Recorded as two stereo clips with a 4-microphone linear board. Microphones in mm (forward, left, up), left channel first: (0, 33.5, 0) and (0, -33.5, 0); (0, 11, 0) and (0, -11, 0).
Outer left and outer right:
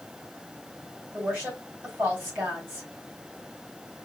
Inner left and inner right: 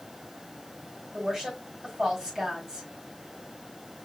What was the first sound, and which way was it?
A woman speaking, 30° right (ahead or behind).